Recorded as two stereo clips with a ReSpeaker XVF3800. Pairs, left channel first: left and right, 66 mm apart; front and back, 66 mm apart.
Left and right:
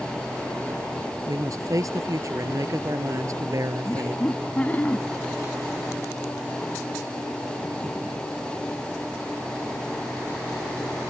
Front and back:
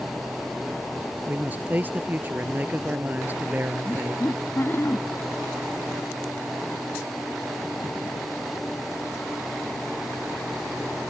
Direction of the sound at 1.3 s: 120° right.